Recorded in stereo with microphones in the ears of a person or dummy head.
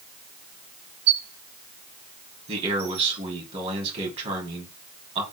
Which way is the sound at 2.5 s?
35° right (ahead or behind).